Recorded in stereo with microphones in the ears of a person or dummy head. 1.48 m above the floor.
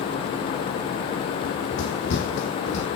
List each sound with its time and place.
1.4 s running footsteps: 70° left (ahead or behind), 5 m; by 2.9 s 55° left (ahead or behind), 4 m